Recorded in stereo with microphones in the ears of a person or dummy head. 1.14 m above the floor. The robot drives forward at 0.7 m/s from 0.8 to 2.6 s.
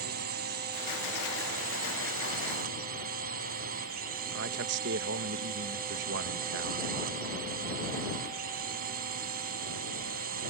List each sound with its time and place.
0.0 s a drone: 50° right (ahead or behind)
4.3 s a man speaking: 60° right (ahead or behind)